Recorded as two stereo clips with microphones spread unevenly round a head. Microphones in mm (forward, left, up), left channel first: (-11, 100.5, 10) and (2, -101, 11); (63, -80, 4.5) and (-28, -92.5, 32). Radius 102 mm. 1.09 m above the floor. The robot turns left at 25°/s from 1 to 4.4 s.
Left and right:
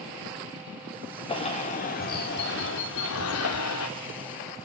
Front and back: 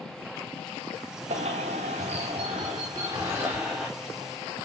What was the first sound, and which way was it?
A bird, 160° left.